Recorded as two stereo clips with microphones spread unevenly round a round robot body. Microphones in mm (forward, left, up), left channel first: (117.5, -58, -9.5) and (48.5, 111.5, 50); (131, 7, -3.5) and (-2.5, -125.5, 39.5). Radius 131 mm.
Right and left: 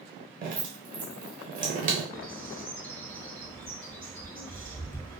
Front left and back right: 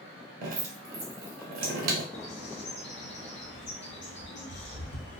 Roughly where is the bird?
Ahead.